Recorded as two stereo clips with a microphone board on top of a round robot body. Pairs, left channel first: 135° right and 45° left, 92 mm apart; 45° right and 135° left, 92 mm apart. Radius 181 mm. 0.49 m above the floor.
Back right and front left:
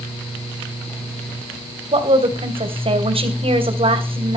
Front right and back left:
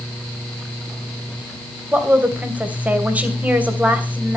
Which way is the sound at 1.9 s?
60° left.